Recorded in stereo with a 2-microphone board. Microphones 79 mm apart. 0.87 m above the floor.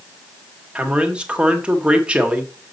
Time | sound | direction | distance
0.8 | a man speaking | 15° right (ahead or behind) | 1.5 m